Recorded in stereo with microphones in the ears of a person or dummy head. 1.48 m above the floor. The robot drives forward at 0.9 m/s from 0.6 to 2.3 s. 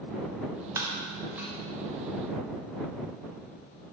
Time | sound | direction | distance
0.8 | breaking glass | 15° right (ahead or behind) | 0.7 m